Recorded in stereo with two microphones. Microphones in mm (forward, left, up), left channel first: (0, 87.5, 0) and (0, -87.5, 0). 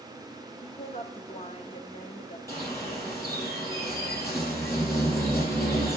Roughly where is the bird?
Centre.